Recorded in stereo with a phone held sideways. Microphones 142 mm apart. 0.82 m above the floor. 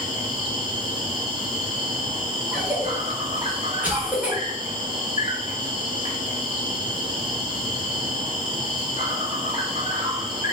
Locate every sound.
0.0 s an insect: 35° right (ahead or behind), 0.9 m
2.5 s a cough: 10° right (ahead or behind), 0.9 m